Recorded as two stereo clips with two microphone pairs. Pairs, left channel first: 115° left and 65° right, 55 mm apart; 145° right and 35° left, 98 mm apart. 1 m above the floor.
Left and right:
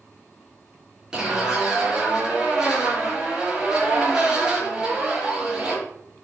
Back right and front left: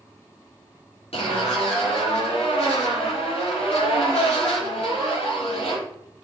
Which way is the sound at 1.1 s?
145° right.